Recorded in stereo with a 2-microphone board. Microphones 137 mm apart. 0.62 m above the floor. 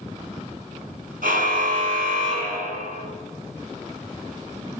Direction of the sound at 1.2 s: 80° right.